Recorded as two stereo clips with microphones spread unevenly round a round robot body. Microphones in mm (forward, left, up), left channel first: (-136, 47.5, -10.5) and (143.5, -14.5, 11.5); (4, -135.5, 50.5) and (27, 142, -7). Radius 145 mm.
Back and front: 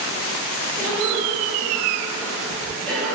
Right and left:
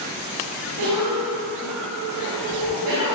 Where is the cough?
85° left, 2.5 m.